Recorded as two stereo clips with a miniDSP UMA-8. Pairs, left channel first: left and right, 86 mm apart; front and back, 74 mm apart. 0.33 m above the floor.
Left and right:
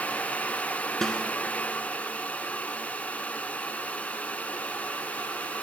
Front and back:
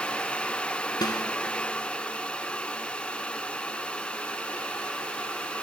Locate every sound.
1.0 s a snare drum: 5° left, 0.9 m